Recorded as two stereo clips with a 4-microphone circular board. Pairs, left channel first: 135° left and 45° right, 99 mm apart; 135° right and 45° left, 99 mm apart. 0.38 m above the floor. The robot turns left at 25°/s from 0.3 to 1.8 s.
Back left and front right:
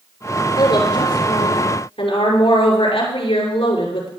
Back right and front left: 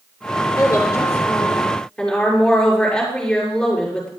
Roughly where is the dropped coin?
No dropped coin in this recording.